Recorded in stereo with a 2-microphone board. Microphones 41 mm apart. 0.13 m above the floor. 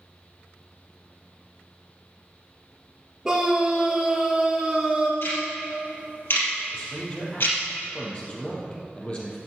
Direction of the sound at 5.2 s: 65° left (ahead or behind).